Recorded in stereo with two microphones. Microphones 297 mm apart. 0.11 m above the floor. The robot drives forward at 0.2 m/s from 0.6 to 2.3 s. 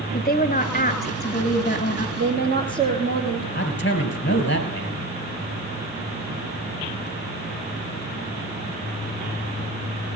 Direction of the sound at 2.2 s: 35° right (ahead or behind).